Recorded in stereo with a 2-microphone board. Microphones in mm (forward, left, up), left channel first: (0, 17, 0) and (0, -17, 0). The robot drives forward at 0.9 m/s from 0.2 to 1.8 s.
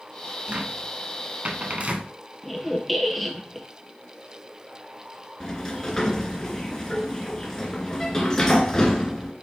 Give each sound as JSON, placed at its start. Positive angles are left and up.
{"t": 0.5, "sound": "a cupboard door", "side_deg": -35, "distance_m": 1.9}
{"t": 2.4, "sound": "a squeak", "side_deg": 5, "distance_m": 1.5}
{"t": 5.4, "sound": "a sliding door", "side_deg": 20, "distance_m": 1.9}